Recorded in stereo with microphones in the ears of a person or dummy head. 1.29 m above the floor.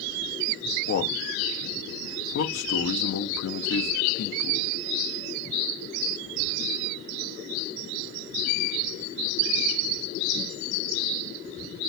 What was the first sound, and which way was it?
A man speaking, 75° left (ahead or behind).